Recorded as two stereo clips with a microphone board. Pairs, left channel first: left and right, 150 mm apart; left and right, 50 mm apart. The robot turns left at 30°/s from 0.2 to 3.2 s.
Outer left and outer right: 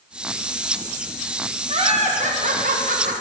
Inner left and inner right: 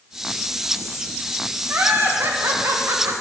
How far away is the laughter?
About 1.5 m.